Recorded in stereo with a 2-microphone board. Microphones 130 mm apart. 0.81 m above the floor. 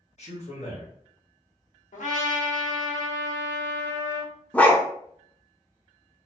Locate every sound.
0.2 s a man speaking: 60° left (ahead or behind), 1.3 m
1.9 s a trumpet: 80° left, 1.0 m
4.5 s a dog barking: 10° left (ahead or behind), 0.5 m